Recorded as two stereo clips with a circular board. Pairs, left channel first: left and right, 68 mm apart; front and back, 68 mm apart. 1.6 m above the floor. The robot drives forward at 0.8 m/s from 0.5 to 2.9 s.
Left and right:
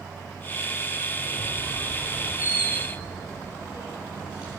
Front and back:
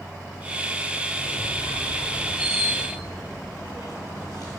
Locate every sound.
1.2 s a squeak: 135° left, 7 m; by 4.6 s 140° left, 8 m